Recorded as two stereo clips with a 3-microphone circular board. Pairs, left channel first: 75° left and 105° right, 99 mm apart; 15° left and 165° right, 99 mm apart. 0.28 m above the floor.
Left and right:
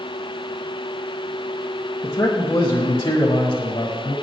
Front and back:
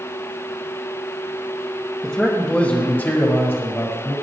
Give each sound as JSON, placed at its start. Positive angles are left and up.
{"t": 2.0, "sound": "a man speaking", "azimuth_deg": 100, "distance_m": 1.6}